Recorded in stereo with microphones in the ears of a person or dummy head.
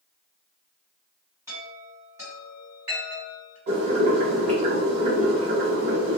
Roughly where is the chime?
Right.